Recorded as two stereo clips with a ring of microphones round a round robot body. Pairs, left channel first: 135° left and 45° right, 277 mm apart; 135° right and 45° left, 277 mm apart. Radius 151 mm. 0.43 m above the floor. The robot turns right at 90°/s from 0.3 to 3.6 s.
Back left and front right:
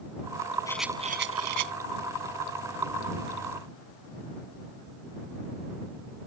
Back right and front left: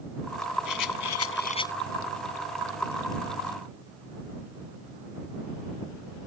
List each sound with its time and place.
0.7 s a rattle: 150° right; by 1.7 s 50° right